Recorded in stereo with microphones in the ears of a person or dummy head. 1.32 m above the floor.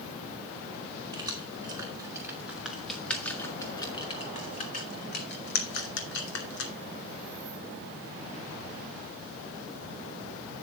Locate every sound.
1.1 s keys jangling: 25° right (ahead or behind), 2.5 m; by 6.7 s 75° left (ahead or behind), 2.5 m